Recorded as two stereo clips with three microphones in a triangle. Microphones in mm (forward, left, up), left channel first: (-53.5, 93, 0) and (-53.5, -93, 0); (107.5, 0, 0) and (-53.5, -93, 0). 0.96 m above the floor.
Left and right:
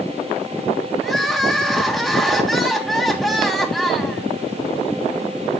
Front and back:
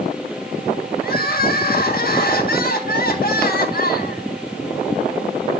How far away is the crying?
About 1.4 m.